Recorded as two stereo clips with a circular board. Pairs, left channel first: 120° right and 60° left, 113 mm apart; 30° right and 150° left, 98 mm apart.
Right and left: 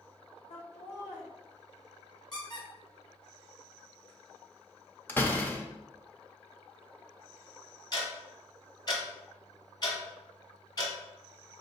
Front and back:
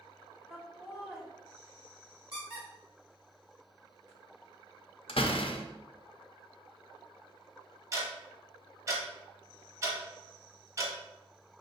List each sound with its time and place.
0.5 s laughter: 125° right, 1.8 m
2.3 s a squeak: 170° right, 1.8 m
5.1 s a door slam: 45° right, 0.6 m
7.9 s ticking: 160° right, 1.3 m